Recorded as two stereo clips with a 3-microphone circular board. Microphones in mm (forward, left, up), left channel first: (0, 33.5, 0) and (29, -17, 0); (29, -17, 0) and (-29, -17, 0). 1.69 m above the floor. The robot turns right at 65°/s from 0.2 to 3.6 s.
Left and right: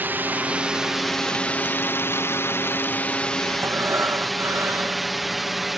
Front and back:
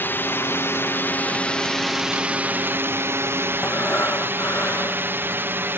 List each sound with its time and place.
0.0 s a drone: 30° right; by 5.8 s 145° right
3.6 s breathing: 40° right